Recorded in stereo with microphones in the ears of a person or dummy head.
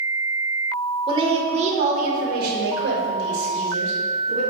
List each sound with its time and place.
1.1 s a woman speaking: 25° right (ahead or behind), 1.1 m; by 4.4 s 80° right, 2 m